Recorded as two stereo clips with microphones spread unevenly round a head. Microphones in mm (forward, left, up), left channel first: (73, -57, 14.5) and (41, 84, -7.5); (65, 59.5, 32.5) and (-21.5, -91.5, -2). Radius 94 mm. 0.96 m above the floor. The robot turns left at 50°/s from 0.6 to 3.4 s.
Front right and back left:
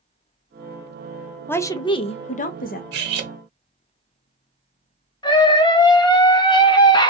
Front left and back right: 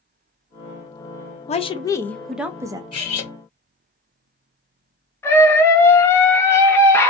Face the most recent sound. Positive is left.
turn(degrees=-25)